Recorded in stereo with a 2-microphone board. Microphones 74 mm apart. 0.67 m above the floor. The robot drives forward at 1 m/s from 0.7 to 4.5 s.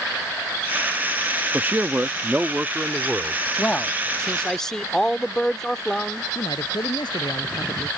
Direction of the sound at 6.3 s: 80° left.